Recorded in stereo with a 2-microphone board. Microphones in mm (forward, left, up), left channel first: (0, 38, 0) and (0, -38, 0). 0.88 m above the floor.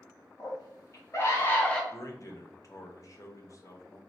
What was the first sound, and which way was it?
A scream, 55° left (ahead or behind).